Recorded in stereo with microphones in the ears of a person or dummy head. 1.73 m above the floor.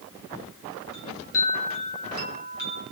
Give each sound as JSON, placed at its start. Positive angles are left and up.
{"t": 0.9, "sound": "a chime", "side_deg": 85, "distance_m": 2.5}